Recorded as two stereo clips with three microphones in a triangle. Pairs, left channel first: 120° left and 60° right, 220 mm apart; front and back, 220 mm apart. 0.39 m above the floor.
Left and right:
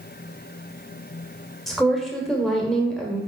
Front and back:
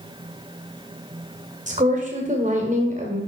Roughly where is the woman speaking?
Behind right.